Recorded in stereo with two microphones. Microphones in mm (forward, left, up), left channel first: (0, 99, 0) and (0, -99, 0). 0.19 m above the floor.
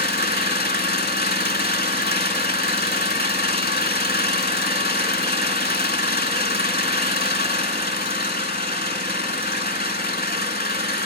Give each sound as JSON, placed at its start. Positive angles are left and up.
{"t": 0.0, "sound": "an engine running", "side_deg": 50, "distance_m": 0.8}